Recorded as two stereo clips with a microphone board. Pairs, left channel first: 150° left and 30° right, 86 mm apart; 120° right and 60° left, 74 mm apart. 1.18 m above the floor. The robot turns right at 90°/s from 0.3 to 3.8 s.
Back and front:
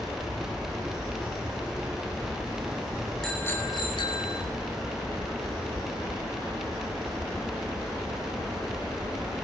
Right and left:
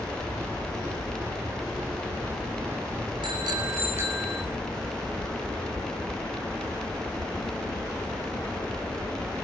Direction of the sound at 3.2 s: 65° left.